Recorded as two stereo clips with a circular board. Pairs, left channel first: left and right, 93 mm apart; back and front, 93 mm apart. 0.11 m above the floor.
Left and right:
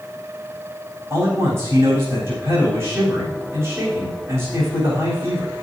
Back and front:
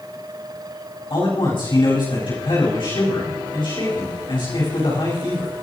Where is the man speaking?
155° right, 8 m.